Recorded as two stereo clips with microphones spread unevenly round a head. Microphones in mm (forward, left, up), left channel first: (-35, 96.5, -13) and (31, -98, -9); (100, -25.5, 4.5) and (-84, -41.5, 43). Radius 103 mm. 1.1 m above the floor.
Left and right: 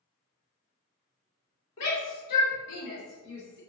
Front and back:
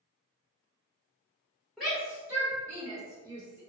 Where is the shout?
90° left, 1.1 m; by 3.6 s 110° left, 2.5 m.